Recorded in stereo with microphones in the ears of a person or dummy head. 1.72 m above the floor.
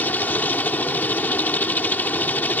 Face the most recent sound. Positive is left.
turn(degrees=10)  # may be behind; listen again after turning